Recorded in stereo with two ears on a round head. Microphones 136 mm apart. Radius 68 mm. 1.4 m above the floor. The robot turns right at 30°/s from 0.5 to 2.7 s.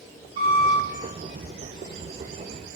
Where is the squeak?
35° right (ahead or behind), 1.2 m; by 0.8 s 40° right (ahead or behind), 1.2 m.